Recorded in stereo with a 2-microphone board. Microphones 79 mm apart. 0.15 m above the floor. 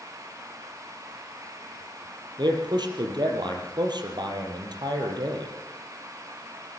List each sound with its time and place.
2.4 s a man speaking: 65° right (ahead or behind), 4.5 m